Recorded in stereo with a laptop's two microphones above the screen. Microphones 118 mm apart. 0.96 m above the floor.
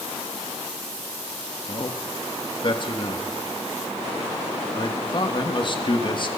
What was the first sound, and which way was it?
A man speaking, 45° left (ahead or behind).